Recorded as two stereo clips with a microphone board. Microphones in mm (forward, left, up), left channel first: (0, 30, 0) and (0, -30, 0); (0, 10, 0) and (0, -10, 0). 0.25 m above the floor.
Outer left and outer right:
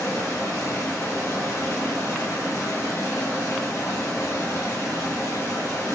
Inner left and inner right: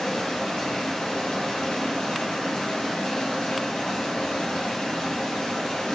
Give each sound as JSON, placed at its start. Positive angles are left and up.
{"t": 0.0, "sound": "running water", "side_deg": 60, "distance_m": 1.5}